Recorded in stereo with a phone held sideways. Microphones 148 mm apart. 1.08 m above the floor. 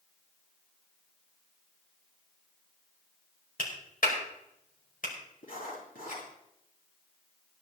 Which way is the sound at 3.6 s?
75° left (ahead or behind).